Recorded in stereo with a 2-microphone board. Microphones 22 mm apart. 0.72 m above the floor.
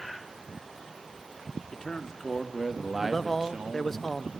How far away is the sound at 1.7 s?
About 2.5 m.